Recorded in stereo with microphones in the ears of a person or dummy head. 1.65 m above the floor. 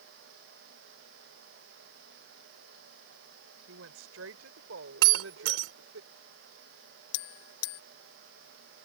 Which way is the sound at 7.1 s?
75° left (ahead or behind).